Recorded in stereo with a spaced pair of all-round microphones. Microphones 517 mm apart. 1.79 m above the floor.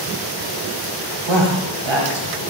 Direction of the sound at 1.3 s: 60° right (ahead or behind).